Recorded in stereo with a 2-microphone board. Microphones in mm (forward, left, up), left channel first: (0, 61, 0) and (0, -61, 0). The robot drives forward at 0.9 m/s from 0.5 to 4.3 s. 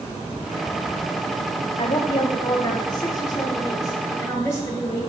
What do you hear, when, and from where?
1.8 s a woman speaking: 50° left (ahead or behind), 2.0 m; by 5.0 s 25° left (ahead or behind), 4 m